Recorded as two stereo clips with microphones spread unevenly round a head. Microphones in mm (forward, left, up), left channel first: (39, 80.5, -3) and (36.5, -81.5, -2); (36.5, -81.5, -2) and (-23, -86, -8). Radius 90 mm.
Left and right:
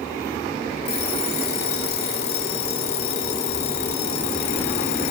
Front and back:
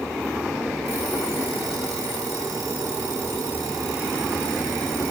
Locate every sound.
0.8 s an alarm clock: 120° left, 2.5 m